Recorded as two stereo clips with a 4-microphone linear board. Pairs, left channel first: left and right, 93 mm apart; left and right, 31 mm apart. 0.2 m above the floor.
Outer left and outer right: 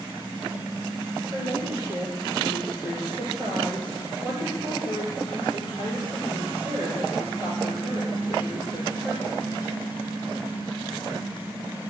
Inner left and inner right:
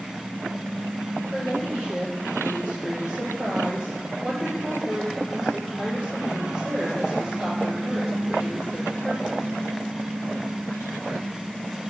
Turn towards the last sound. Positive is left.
turn(degrees=-30)  # may be behind; listen again after turning